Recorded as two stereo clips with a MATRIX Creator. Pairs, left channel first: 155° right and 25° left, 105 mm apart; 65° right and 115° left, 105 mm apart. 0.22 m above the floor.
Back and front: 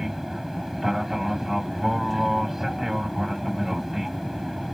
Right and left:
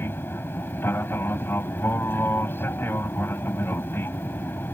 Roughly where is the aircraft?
Ahead right.